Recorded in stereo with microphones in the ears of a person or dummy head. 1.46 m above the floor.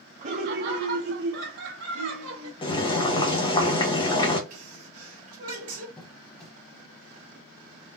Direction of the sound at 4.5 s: 35° right (ahead or behind).